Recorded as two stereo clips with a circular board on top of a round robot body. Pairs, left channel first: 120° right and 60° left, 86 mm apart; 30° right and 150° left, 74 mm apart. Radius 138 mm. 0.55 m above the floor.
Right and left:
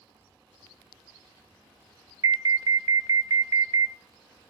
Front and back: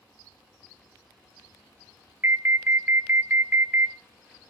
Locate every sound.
2.2 s an alarm: 95° left, 0.6 m